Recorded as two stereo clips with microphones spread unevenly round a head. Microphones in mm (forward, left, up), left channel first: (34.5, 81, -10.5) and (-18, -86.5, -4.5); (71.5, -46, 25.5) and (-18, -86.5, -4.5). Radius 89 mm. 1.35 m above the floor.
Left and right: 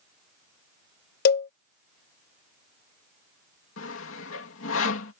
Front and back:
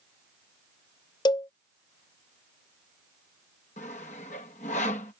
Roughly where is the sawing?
Ahead left.